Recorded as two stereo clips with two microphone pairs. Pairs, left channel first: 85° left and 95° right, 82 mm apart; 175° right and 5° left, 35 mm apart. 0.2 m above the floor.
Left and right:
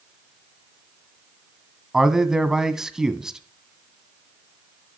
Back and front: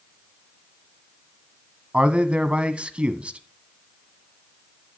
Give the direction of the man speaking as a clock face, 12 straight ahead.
1 o'clock.